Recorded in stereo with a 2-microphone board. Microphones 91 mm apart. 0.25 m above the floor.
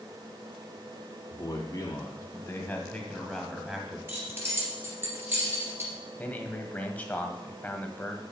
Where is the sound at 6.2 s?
15° left (ahead or behind), 1.2 m.